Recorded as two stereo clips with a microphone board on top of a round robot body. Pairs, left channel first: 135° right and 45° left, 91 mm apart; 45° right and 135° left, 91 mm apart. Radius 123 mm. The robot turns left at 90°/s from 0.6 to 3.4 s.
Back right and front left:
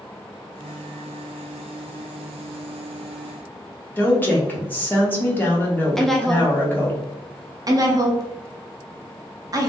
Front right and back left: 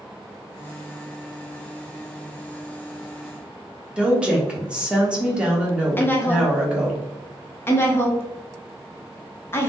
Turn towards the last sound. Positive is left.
turn(degrees=10)